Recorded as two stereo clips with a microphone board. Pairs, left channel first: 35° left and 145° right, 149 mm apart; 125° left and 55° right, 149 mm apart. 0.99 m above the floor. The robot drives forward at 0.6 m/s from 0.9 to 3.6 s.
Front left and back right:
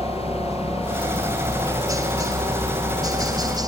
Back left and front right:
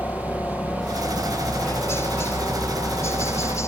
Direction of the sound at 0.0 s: 175° left.